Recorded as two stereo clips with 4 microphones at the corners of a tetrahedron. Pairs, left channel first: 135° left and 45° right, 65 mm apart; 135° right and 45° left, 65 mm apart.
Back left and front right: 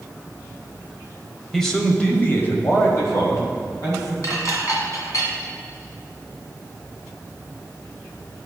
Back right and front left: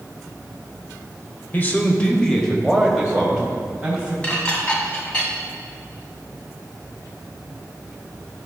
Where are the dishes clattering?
155° left, 1.4 m.